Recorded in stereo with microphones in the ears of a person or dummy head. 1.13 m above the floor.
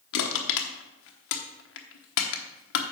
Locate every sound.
0.1 s crushing: 65° left (ahead or behind), 1.0 m